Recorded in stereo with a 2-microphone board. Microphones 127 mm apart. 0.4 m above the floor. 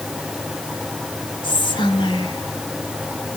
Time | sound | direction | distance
1.4 | whispering | 40° left (ahead or behind) | 1.8 m